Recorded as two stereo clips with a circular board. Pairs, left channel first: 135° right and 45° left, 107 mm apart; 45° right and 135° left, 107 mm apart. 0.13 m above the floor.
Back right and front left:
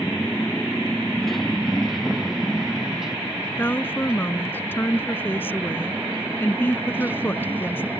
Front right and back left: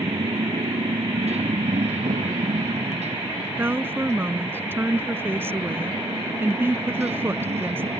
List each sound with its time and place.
0.0 s a motorcycle: 150° left; by 8.0 s 115° left
3.6 s a woman speaking: 175° left